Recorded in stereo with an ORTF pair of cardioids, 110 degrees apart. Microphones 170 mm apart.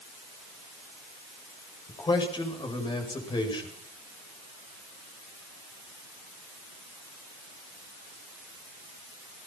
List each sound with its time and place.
1.9 s a man speaking: 25° left, 8 m